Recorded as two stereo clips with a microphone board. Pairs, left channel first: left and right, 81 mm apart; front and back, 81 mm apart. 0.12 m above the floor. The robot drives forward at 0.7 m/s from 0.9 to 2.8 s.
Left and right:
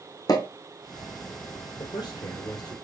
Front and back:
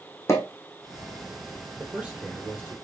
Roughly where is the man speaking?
Left.